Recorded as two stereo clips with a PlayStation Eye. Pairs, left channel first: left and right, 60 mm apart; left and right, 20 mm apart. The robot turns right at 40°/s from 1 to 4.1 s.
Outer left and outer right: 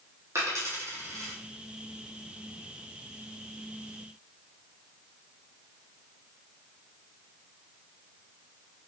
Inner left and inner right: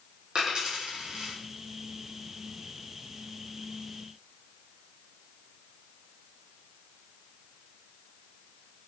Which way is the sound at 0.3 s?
50° right (ahead or behind).